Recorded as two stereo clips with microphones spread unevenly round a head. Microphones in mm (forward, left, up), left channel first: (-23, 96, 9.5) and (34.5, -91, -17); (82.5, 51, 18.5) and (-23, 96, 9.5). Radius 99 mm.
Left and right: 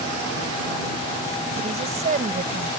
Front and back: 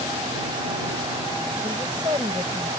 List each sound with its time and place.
1.6 s a woman speaking: 130° right